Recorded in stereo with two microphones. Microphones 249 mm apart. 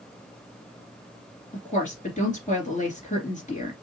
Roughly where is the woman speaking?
Left.